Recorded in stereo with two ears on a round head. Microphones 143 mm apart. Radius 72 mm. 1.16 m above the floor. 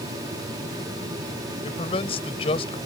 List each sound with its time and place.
1.6 s a man speaking: 35° left (ahead or behind)